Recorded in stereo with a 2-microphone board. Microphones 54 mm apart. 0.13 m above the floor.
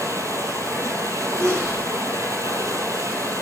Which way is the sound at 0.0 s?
75° right (ahead or behind).